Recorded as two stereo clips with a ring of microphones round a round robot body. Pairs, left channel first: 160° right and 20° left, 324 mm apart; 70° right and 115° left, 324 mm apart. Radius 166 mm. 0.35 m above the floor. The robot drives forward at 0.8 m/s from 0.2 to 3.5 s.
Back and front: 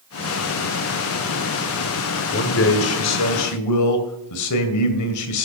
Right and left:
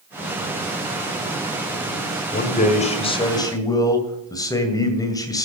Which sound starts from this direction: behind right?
A man speaking, at 2.3 s.